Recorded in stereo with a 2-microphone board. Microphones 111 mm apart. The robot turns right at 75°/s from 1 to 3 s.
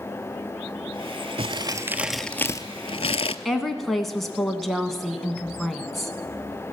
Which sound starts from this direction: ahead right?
Crumpling, at 1.4 s.